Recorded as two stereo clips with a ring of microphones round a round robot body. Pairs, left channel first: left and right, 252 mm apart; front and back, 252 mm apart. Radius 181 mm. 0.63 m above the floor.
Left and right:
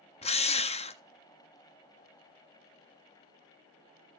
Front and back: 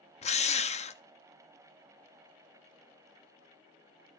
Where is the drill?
45° left, 0.6 m.